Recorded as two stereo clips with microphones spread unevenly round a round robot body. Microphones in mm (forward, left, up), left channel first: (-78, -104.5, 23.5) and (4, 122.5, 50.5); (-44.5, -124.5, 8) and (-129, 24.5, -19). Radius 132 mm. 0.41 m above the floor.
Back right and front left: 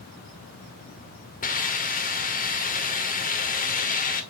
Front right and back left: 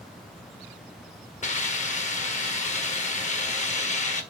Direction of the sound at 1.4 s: 95° right.